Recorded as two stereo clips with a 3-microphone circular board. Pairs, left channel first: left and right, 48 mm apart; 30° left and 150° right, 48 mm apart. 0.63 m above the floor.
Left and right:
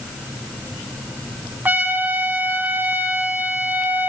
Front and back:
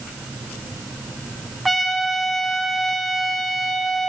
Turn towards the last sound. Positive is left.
turn(degrees=-60)